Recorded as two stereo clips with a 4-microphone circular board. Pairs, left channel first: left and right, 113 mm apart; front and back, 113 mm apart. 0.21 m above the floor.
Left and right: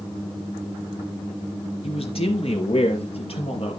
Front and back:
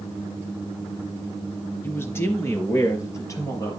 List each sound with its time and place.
1.8 s a man speaking: 70° left, 3 m; by 3.8 s 60° left, 5 m